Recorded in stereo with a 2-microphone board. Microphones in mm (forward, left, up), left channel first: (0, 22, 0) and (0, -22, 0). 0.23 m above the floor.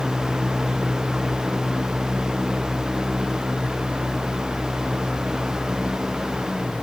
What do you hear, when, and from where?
Only background noise.